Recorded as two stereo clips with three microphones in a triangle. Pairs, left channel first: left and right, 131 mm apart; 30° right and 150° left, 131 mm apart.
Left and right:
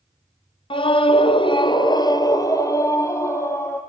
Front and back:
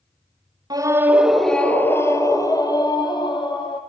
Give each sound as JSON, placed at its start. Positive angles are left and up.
{"t": 0.7, "sound": "a scream", "azimuth_deg": 110, "distance_m": 1.3}